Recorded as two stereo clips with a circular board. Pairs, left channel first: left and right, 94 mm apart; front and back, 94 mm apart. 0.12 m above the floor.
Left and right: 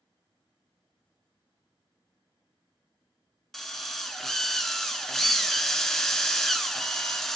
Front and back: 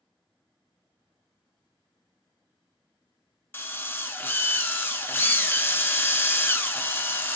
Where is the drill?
10° left, 0.5 m.